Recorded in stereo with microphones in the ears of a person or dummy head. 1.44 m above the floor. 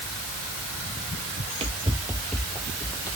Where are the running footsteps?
35° right (ahead or behind); by 3.2 s 20° left (ahead or behind).